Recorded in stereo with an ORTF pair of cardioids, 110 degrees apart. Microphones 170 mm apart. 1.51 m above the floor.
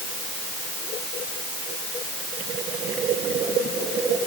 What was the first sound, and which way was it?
Only background noise.